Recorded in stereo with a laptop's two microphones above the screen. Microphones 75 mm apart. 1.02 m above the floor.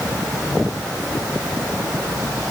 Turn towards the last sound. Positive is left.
No sound to turn to.